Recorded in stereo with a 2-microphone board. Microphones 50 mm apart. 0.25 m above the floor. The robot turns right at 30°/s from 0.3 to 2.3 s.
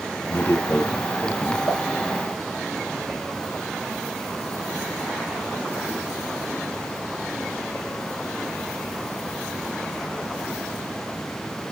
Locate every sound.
0.3 s a man speaking: 55° left, 2 m; by 1.6 s 95° left, 2 m
1.7 s a pop: 45° left (ahead or behind), 2.5 m; by 1.8 s 50° left (ahead or behind), 2.5 m